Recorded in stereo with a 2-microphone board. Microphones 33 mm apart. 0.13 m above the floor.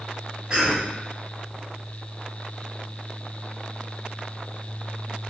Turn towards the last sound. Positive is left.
turn(degrees=-25)  # may be behind; listen again after turning